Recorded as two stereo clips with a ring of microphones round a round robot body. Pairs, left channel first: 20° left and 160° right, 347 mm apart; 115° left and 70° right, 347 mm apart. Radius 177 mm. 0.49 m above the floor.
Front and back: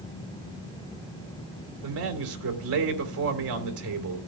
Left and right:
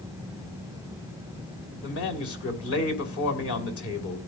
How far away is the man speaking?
About 2.5 m.